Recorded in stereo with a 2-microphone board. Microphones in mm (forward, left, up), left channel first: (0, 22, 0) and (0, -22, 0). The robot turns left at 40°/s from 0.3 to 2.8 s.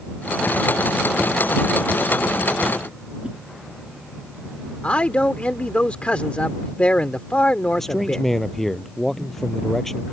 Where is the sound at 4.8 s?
30° left (ahead or behind).